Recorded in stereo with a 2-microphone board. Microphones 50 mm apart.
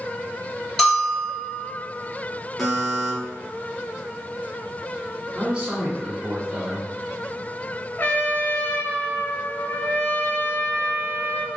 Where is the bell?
15° left (ahead or behind), 2 m.